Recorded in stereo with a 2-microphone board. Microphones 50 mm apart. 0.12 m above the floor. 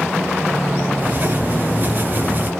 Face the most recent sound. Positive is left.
turn(degrees=-40)  # may be behind; listen again after turning